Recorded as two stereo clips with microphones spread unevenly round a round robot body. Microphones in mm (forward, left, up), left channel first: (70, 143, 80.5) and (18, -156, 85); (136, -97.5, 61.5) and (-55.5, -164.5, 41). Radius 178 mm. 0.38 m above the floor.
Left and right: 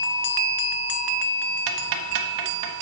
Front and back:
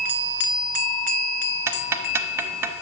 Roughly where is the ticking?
Right.